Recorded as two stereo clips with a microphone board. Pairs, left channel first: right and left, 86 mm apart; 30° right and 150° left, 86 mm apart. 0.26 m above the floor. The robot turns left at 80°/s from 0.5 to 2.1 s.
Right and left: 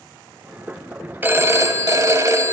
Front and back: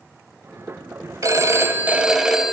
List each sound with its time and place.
1.2 s a phone ringing: 140° left, 0.7 m; by 2.5 s 70° left, 0.7 m